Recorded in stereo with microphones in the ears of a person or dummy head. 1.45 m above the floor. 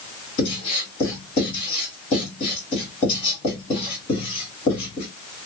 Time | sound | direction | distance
0.4 | writing | 35° left (ahead or behind) | 1.9 m